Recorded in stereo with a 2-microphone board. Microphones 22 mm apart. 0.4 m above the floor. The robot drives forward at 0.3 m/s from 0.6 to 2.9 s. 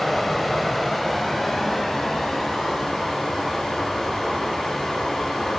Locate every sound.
0.0 s running water: centre (ahead or behind), 0.7 m